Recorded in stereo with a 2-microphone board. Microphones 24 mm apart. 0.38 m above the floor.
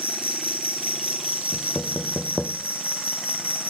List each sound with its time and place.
0.0 s an insect: 80° right, 1.8 m
1.5 s knocking: 30° right (ahead or behind), 0.6 m